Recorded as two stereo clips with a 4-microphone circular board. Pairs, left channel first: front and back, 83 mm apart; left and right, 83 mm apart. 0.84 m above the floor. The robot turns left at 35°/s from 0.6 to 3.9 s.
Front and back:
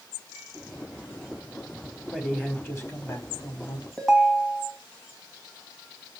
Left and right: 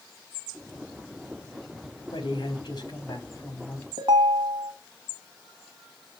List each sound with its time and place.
2.1 s a man speaking: 80° left, 2 m; by 3.9 s 20° left, 2 m
4.0 s a ringtone: 85° right, 2.5 m